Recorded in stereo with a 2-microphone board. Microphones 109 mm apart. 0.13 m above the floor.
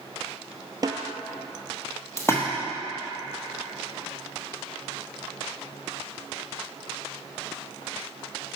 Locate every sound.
0.8 s a snare drum: 40° right (ahead or behind), 0.6 m
2.2 s a splash: 25° left (ahead or behind), 1.2 m